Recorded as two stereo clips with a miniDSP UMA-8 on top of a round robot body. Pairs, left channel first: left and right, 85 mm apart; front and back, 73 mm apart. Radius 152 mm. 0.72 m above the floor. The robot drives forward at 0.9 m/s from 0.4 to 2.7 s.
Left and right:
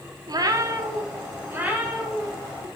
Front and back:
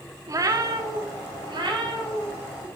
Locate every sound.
0.3 s a cat meowing: 135° right, 0.9 m; by 2.7 s 165° right, 2.5 m